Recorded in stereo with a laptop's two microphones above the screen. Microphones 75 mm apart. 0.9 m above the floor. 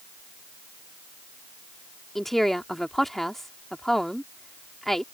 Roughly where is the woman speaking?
Centre.